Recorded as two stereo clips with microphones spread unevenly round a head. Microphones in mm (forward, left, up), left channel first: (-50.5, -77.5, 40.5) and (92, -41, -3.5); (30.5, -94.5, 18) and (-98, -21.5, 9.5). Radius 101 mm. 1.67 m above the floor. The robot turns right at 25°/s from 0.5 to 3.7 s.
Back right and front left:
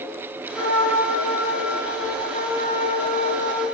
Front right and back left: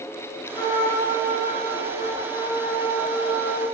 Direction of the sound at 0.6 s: 95° right.